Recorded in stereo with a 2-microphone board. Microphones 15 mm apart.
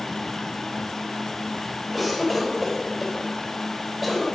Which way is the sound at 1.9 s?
Centre (ahead or behind).